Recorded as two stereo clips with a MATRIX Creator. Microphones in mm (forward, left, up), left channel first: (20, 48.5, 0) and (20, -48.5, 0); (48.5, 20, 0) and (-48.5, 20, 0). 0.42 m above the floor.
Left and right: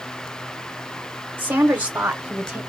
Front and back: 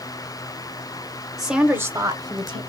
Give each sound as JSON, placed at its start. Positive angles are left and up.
{"t": 1.4, "sound": "a woman speaking", "azimuth_deg": -80, "distance_m": 0.8}